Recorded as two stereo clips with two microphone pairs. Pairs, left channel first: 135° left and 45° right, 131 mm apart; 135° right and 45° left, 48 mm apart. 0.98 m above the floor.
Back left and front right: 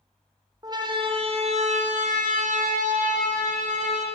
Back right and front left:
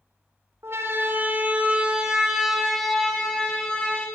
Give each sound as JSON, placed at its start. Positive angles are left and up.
{"t": 0.6, "sound": "a siren", "azimuth_deg": 15, "distance_m": 3.0}